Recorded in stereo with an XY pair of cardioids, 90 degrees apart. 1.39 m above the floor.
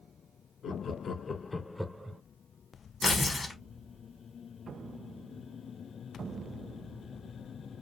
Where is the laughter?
65° left, 1.0 m; by 2.2 s 30° right, 0.6 m.